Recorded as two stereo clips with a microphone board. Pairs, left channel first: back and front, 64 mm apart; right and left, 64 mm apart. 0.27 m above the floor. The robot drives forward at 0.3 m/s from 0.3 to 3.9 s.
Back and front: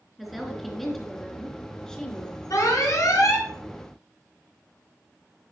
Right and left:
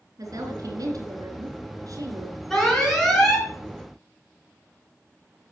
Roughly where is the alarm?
Behind.